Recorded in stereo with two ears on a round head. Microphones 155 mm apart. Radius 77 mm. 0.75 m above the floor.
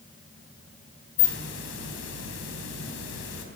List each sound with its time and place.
1.2 s a hiss: 80° left, 4 m